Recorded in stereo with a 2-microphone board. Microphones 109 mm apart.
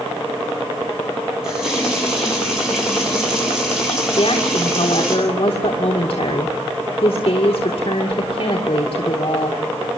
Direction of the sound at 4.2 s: 60° left (ahead or behind).